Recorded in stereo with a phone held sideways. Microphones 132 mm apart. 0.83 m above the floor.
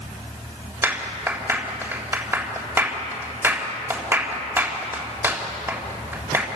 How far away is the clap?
About 3.5 m.